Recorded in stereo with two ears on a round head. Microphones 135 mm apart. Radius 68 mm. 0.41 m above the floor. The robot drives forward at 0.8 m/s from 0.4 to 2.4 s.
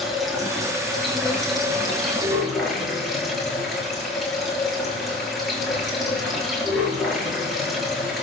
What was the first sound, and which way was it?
Running water, centre (ahead or behind).